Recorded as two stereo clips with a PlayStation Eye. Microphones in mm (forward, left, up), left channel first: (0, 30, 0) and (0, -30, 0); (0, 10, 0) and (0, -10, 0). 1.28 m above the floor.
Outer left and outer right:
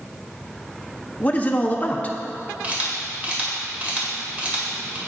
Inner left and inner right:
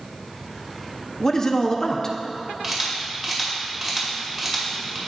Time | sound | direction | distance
1.2 | a man speaking | 25° left (ahead or behind) | 0.8 m
2.6 | a camera shutter | 25° right (ahead or behind) | 1.9 m